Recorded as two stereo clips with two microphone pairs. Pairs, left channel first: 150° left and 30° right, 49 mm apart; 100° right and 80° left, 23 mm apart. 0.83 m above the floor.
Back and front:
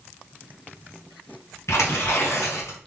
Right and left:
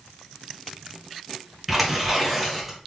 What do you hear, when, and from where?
1.7 s tearing paper: 165° left, 1.9 m